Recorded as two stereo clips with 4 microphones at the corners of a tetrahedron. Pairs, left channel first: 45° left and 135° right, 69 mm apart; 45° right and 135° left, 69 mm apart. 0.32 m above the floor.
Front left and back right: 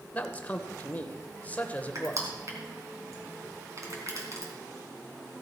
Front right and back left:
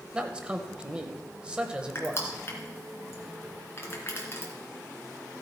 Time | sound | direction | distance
0.1 | a man speaking | 80° left | 0.9 m
1.9 | crushing | 95° right | 3 m